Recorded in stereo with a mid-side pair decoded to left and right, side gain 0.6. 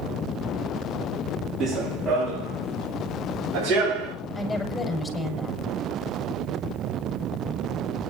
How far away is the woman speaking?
About 7 m.